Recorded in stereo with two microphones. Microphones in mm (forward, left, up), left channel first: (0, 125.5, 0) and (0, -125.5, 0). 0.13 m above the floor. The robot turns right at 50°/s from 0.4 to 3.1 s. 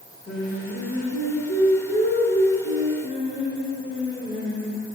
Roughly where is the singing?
Ahead left.